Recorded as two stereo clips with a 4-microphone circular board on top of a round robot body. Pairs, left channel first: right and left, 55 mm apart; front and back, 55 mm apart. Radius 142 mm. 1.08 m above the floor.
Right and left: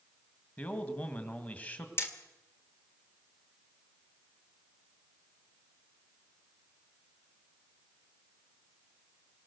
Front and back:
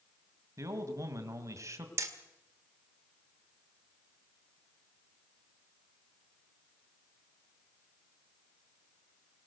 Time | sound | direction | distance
0.6 | a man speaking | 150° right | 2 m
2.0 | hammering | 135° right | 1.5 m